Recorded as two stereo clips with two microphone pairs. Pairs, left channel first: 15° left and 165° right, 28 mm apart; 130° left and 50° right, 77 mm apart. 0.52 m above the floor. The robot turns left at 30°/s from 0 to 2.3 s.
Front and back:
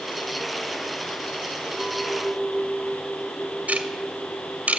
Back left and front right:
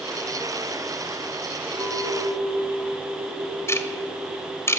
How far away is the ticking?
About 2 m.